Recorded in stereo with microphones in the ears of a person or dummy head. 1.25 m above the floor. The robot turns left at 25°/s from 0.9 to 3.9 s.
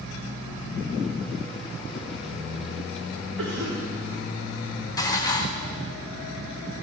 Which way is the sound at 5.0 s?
20° left (ahead or behind).